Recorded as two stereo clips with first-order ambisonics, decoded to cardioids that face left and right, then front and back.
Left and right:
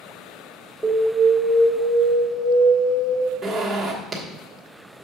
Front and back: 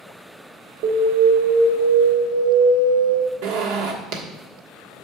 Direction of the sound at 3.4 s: 175° right.